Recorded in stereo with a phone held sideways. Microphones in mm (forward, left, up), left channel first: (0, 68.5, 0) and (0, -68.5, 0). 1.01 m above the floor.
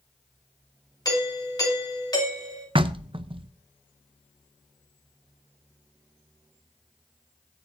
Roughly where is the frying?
I don't hear frying.